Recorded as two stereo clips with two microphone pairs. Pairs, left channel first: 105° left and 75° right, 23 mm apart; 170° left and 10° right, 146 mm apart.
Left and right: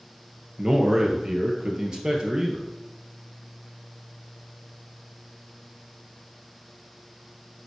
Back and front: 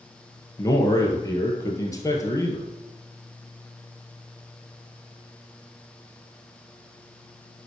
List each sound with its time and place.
0.6 s a man speaking: 125° right, 1.8 m